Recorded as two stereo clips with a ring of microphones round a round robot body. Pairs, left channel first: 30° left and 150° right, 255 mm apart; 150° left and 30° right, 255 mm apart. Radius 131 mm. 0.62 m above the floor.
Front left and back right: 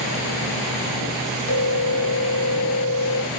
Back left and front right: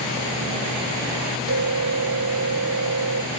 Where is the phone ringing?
5° left, 2 m.